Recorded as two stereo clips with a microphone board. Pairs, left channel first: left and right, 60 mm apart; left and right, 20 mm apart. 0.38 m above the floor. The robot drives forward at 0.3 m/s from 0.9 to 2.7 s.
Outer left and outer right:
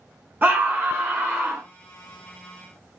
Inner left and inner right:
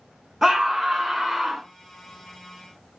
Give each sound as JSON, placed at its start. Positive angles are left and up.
{"t": 0.4, "sound": "a scream", "side_deg": -30, "distance_m": 1.4}